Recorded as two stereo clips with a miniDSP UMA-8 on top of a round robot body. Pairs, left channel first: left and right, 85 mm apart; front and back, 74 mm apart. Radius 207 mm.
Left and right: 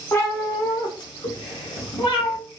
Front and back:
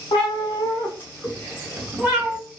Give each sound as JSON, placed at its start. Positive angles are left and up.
{"t": 0.1, "sound": "a cat meowing", "azimuth_deg": 25, "distance_m": 0.8}